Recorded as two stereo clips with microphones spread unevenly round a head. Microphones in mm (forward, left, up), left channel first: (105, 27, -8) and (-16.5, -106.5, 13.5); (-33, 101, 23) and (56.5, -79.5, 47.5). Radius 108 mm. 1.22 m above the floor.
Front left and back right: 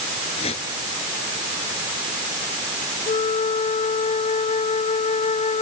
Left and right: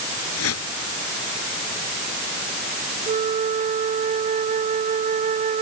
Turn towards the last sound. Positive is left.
turn(degrees=-5)